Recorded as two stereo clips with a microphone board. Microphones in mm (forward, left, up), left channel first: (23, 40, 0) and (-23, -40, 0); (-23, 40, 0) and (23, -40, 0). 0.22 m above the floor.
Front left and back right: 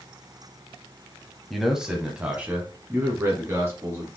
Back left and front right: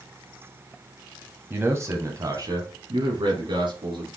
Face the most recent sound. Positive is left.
turn(degrees=-65)